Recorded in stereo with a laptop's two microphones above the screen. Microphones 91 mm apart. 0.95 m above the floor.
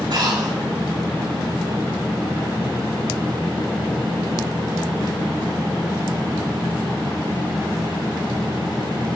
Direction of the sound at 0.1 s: 55° right (ahead or behind).